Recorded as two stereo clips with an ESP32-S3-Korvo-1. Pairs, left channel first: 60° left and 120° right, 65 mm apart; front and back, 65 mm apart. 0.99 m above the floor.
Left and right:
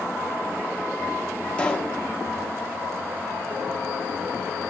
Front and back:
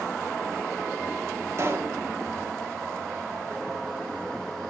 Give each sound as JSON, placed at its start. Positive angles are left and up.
{"t": 1.6, "sound": "a pop", "azimuth_deg": 135, "distance_m": 1.1}